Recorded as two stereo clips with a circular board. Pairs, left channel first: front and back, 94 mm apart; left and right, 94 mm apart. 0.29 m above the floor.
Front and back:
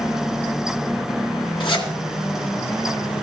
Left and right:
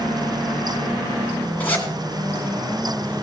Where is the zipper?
15° left, 2.5 m.